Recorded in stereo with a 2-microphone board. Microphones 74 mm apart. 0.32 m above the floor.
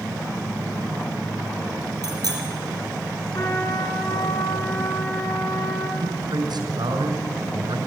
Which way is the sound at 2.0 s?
60° right (ahead or behind).